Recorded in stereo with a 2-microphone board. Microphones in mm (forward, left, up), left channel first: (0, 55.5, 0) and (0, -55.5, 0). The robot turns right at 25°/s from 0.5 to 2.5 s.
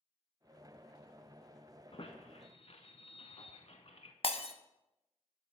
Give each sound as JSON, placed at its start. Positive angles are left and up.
{"t": 1.9, "sound": "a squeak", "side_deg": 55, "distance_m": 0.7}
{"t": 4.2, "sound": "breaking glass", "side_deg": 60, "distance_m": 0.5}